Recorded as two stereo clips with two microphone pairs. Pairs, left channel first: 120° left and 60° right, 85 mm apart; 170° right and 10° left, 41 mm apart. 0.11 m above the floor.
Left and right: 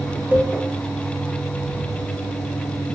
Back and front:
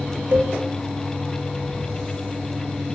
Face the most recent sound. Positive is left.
turn(degrees=5)